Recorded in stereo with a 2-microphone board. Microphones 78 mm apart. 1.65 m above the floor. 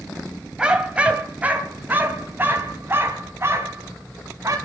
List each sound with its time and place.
0.6 s a dog barking: 10° right (ahead or behind), 3 m; by 4.6 s 40° right (ahead or behind), 4.5 m